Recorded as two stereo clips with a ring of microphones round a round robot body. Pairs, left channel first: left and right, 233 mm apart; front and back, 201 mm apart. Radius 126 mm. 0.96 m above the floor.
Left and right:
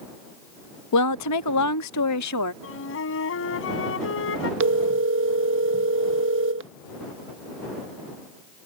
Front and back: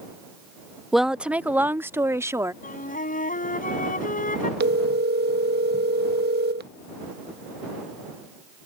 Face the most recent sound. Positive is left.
turn(degrees=-130)